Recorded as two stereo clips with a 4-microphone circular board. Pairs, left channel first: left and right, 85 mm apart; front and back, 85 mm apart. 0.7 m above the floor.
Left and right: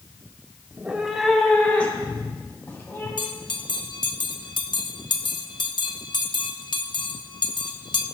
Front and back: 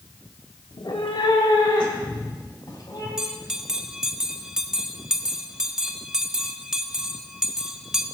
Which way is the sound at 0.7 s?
30° right.